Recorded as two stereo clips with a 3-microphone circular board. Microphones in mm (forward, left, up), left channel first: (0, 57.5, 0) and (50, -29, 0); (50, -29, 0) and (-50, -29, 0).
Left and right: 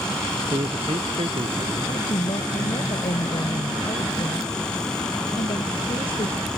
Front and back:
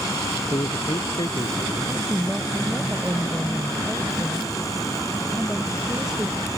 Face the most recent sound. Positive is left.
turn(degrees=95)